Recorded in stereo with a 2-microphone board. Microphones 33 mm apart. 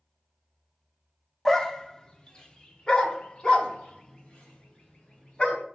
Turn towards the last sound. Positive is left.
turn(degrees=30)  # may be behind; listen again after turning